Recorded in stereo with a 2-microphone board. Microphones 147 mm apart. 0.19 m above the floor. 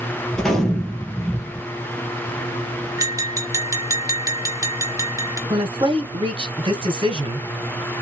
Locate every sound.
0.3 s a gunshot: 5° left (ahead or behind), 1.9 m
3.0 s tapping: 20° right (ahead or behind), 1.3 m
5.5 s a woman speaking: 35° right (ahead or behind), 1.4 m